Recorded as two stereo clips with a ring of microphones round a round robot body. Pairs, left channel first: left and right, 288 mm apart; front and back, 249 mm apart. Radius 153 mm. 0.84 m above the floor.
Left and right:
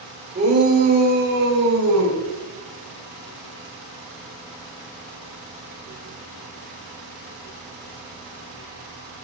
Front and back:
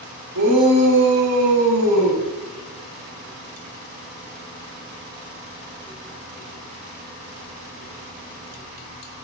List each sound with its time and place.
0.3 s a shout: 150° right, 4 m; by 2.2 s 140° right, 6 m